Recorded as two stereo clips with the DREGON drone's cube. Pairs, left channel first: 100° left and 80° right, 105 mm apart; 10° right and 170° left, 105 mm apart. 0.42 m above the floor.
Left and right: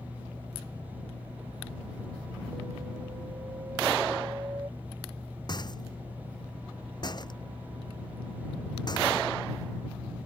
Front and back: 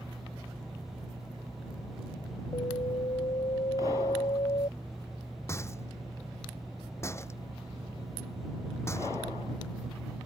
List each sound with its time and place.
2.5 s an alarm: 25° right
5.5 s a rattle: 55° left